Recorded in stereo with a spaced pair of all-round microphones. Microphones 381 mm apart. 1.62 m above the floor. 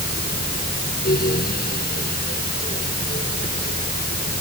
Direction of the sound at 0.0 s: 25° left (ahead or behind).